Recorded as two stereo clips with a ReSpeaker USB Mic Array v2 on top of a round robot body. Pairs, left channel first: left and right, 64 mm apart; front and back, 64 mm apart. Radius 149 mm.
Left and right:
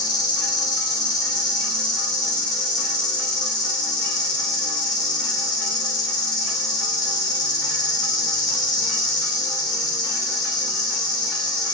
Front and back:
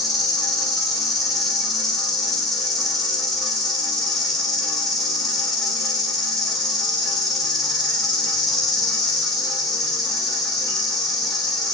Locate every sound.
0.0 s an insect: 90° left, 0.9 m